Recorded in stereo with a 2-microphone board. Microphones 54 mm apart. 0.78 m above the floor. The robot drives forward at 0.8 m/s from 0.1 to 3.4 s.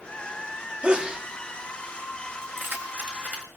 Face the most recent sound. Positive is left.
turn(degrees=-30)  # may be behind; listen again after turning